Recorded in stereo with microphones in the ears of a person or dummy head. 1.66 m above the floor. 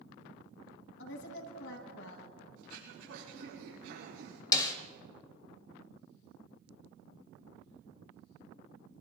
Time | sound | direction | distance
1.0 | a woman speaking | 70° left (ahead or behind) | 3 m
2.6 | throat clearing | 80° right | 7 m
4.5 | a snare drum | 20° left (ahead or behind) | 1.2 m